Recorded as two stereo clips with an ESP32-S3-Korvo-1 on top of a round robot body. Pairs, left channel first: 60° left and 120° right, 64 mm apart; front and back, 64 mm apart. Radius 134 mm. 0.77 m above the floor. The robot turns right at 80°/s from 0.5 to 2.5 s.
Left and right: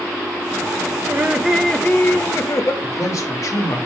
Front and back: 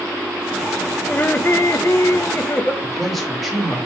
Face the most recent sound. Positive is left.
turn(degrees=90)